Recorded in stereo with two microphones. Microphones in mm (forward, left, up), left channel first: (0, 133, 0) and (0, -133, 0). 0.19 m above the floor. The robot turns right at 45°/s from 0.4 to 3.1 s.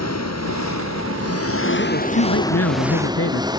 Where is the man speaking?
50° left; by 3.5 s 110° left.